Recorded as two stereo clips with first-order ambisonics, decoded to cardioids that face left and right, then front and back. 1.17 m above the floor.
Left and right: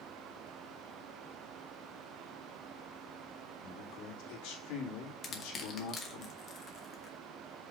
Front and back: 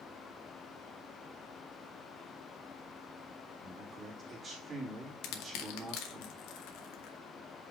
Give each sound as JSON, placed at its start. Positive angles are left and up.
{"t": 3.6, "sound": "a man speaking", "azimuth_deg": 115, "distance_m": 2.5}
{"t": 5.2, "sound": "crushing", "azimuth_deg": 25, "distance_m": 1.2}